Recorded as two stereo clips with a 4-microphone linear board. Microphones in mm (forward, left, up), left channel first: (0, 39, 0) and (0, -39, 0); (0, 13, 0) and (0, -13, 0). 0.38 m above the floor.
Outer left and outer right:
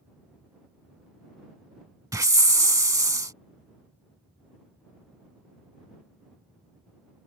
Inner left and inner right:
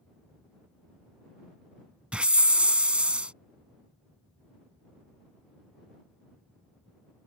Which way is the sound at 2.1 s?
45° right (ahead or behind).